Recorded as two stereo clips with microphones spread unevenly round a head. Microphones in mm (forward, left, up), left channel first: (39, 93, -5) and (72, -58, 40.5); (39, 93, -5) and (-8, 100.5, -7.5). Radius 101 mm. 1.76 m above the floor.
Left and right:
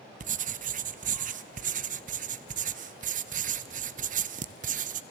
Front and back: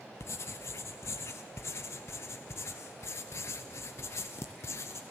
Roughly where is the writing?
Ahead right.